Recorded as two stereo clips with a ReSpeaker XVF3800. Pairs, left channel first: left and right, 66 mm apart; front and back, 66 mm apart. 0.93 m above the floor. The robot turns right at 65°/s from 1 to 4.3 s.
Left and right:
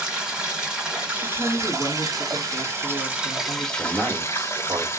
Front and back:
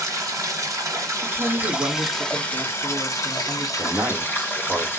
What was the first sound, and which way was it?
Running water, 165° right.